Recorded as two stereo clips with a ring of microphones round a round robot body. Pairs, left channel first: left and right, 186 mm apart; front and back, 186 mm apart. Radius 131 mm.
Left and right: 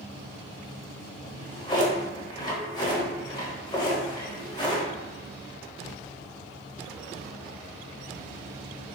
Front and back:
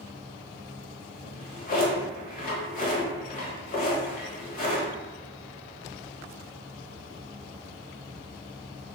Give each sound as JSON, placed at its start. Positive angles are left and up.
{"t": 1.2, "sound": "a drawer", "azimuth_deg": 25, "distance_m": 0.9}